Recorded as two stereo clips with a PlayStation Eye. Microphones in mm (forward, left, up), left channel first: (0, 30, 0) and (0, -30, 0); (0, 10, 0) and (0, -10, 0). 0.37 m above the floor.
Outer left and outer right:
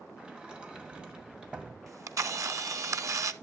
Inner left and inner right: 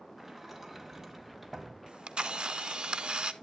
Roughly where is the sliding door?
Centre.